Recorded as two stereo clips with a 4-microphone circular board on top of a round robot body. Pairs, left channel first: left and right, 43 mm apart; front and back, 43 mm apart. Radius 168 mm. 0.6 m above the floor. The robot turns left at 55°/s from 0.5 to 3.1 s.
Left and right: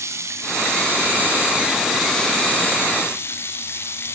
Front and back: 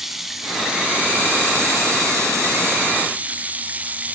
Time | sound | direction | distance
0.0 | running water | 95° right | 2.5 m